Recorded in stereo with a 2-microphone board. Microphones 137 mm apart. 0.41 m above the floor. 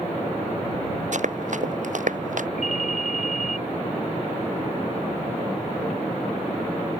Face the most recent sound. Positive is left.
turn(degrees=-65)  # may be behind; listen again after turning